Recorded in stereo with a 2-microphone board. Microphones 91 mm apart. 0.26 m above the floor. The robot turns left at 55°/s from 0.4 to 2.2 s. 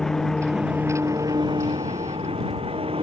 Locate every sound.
0.0 s an engine running: 5° left; by 3.0 s 95° right